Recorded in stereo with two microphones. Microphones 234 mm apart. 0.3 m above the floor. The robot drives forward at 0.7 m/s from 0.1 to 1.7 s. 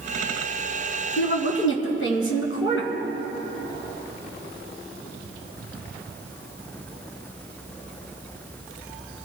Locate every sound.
1.2 s a woman speaking: 55° left (ahead or behind), 2.5 m; by 2.9 s 60° left (ahead or behind), 2.5 m